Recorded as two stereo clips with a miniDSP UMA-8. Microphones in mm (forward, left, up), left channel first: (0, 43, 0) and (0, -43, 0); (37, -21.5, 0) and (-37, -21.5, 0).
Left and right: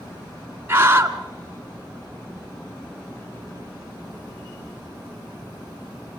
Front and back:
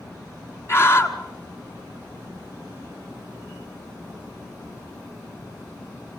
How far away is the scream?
About 1.7 m.